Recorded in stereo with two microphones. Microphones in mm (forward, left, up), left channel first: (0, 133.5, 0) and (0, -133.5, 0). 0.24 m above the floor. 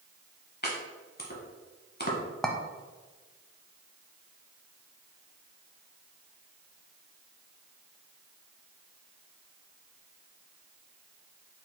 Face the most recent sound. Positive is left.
turn(degrees=0)  # may be behind; listen again after turning